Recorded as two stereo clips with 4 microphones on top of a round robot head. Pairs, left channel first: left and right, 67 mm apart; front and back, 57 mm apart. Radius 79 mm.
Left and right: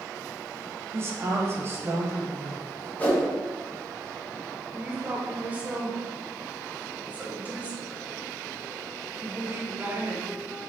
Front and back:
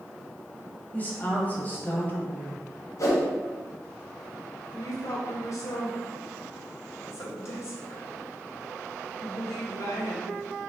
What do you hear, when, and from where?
0.9 s a woman speaking: 50° right, 1.3 m
3.0 s a whoosh: 25° left, 1.3 m
4.7 s a woman speaking: 25° right, 1.2 m